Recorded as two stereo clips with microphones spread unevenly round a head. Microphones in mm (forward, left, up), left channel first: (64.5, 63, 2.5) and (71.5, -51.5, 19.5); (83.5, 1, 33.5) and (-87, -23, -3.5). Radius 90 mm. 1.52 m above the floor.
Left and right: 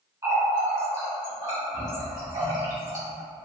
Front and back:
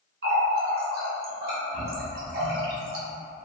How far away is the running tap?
About 1.0 m.